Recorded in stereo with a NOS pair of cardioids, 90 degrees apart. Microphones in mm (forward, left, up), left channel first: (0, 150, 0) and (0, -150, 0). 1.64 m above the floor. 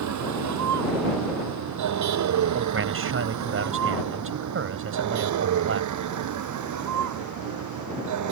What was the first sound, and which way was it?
A vehicle, 65° right.